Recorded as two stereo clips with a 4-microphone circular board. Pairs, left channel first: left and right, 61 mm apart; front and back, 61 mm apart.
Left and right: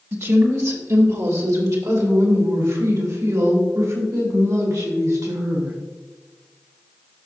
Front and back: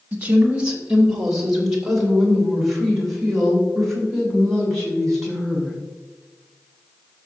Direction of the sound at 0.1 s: 120° right.